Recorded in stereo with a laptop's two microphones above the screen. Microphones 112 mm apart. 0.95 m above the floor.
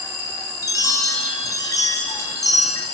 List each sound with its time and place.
0.6 s a chime: 30° left (ahead or behind), 3 m